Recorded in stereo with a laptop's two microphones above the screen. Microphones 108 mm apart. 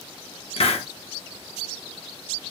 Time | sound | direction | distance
0.6 | a hiss | 65° left (ahead or behind) | 0.7 m